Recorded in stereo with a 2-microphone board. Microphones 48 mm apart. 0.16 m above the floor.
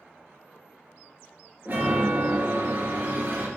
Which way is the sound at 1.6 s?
40° right (ahead or behind).